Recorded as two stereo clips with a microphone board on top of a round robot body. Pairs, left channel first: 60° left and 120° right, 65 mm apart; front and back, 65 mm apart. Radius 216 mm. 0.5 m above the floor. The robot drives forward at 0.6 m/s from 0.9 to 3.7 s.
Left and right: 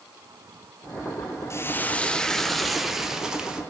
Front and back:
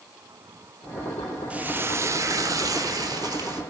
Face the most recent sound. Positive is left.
turn(degrees=160)